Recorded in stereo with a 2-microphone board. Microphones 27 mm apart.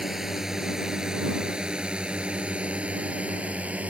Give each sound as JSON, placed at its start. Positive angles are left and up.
{"t": 0.0, "sound": "a drone", "side_deg": -15}